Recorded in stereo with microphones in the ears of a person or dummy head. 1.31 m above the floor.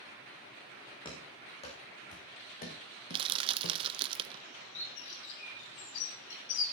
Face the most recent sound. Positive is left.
turn(degrees=70)  # may be behind; listen again after turning